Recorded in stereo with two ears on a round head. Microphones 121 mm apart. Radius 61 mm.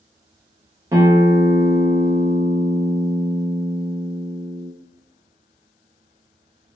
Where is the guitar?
25° right (ahead or behind), 0.6 m.